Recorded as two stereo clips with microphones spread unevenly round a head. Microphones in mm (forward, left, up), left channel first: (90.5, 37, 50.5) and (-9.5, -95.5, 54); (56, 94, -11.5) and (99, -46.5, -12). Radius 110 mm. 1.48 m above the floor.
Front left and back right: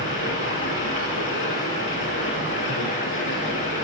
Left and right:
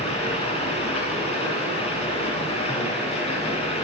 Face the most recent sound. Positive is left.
turn(degrees=65)